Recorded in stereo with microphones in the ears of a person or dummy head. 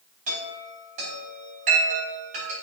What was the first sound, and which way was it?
A chime, 45° right (ahead or behind).